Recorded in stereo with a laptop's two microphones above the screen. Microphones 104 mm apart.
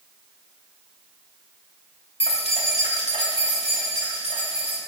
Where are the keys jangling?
65° left (ahead or behind), 1.1 m; by 4.8 s 80° left, 3 m.